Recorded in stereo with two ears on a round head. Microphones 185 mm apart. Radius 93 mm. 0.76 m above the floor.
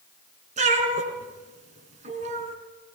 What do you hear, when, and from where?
0.6 s a cat meowing: 35° right (ahead or behind), 3.5 m